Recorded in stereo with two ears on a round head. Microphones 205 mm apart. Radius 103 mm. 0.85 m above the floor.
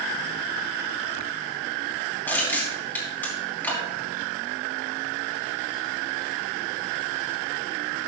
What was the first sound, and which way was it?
Crushing, 10° left (ahead or behind).